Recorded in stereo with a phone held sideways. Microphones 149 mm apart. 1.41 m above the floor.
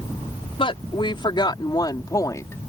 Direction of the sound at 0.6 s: 35° left (ahead or behind).